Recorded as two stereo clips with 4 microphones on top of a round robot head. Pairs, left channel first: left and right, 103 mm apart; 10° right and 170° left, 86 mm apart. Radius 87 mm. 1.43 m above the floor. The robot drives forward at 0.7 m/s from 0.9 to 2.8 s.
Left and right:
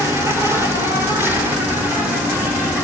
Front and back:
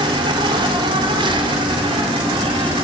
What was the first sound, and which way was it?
An insect, 155° right.